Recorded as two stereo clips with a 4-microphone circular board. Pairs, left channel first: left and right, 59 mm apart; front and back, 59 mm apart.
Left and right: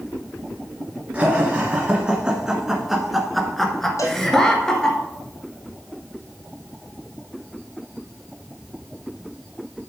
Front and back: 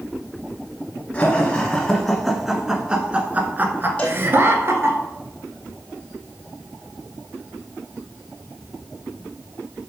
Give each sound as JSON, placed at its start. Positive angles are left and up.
{"t": 1.1, "sound": "laughter", "azimuth_deg": -45, "distance_m": 1.9}
{"t": 4.0, "sound": "a cowbell", "azimuth_deg": 65, "distance_m": 3.5}